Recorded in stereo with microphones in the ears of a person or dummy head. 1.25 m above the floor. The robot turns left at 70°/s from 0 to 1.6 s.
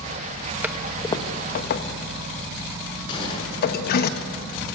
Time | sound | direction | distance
0.6 | a toilet flushing | 5° right (ahead or behind) | 1.2 m
3.1 | a gunshot | 25° left (ahead or behind) | 7 m